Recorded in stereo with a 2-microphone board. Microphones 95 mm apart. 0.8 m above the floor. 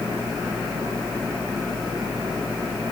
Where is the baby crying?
I don't hear a baby crying.